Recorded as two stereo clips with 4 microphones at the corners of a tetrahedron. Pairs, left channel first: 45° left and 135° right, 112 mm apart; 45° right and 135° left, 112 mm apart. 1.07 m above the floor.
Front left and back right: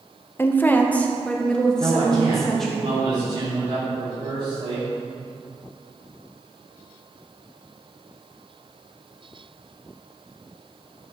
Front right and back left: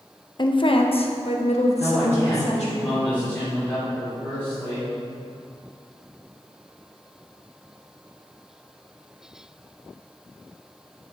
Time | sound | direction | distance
0.4 | a woman speaking | 20° right | 0.8 m
1.8 | a man speaking | 120° right | 3.5 m